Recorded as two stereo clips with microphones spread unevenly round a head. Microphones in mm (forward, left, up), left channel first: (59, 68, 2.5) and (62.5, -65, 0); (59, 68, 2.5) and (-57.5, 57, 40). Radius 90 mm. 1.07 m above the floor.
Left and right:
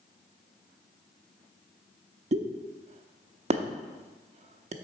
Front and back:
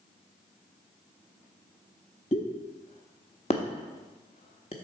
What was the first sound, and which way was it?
A pop, 60° right.